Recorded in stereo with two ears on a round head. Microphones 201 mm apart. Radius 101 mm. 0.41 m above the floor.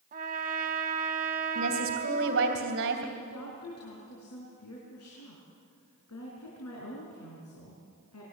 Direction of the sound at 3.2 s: 80° left.